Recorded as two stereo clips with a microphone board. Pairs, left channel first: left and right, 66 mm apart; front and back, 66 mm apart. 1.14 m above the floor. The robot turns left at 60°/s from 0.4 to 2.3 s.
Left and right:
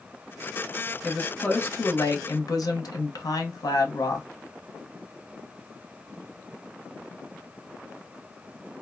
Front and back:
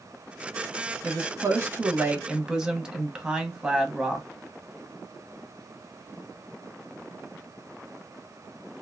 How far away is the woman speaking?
About 0.9 m.